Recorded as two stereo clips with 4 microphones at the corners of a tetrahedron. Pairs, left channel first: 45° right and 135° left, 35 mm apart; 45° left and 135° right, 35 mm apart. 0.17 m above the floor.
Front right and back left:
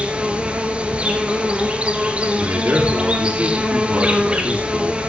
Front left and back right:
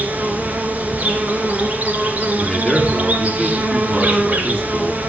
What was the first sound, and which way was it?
An insect, 175° right.